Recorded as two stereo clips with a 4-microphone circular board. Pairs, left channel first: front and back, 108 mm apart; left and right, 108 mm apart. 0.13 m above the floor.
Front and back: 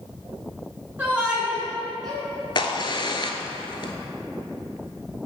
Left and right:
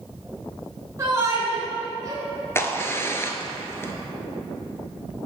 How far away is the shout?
About 1.7 m.